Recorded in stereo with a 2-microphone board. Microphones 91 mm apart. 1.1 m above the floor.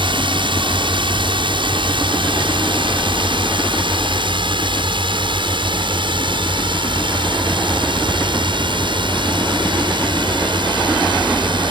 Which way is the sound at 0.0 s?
70° right (ahead or behind).